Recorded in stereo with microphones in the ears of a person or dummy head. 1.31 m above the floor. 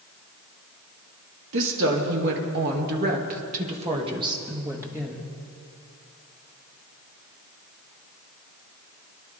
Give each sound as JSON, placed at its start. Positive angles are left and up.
{"t": 1.5, "sound": "a woman speaking", "side_deg": -75, "distance_m": 2.5}